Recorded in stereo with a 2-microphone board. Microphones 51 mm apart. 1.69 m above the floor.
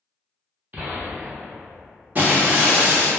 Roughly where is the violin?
I don't hear a violin.